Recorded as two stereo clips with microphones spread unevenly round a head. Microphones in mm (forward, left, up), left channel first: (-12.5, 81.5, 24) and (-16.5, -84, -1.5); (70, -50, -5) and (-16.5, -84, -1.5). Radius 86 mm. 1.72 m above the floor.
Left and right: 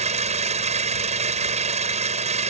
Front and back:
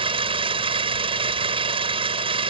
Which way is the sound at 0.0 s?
145° right.